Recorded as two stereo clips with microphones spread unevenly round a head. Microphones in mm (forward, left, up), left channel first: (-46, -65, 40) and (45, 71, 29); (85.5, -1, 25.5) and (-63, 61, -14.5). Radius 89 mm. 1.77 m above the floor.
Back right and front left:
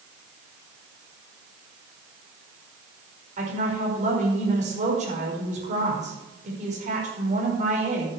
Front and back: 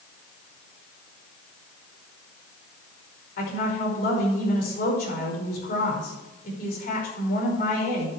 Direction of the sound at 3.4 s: 5° left.